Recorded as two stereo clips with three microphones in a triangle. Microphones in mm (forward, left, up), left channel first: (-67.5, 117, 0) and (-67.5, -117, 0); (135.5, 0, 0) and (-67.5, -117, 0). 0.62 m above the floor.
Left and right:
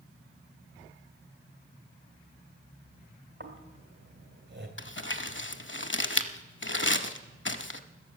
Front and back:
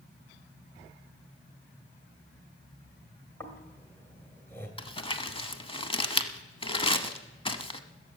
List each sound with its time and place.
3.4 s snoring: 50° right, 2 m
4.8 s crumpling: 90° left, 0.7 m